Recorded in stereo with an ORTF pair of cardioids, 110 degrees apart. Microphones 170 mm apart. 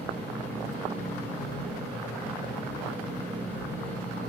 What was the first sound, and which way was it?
A fan, 10° left.